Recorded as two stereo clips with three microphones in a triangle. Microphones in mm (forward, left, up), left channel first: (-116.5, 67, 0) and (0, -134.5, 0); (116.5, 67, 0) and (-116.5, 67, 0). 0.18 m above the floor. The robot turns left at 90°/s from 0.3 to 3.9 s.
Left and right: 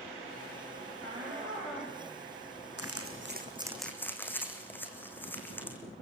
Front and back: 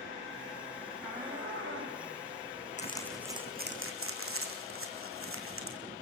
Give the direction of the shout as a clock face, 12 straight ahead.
3 o'clock.